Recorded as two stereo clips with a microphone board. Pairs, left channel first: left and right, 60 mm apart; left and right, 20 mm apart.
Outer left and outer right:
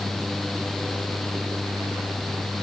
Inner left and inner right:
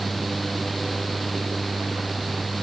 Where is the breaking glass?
No breaking glass in this recording.